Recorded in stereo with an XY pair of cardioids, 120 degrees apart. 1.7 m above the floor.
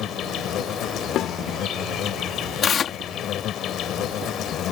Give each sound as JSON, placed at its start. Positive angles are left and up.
{"t": 0.0, "sound": "an insect", "azimuth_deg": 65}
{"t": 1.1, "sound": "a snare drum", "azimuth_deg": 60}
{"t": 2.6, "sound": "tearing paper", "azimuth_deg": 45}